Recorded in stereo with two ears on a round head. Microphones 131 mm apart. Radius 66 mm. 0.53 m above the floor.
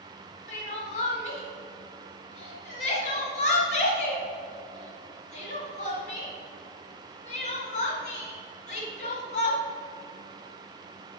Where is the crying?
50° left (ahead or behind), 1.7 m.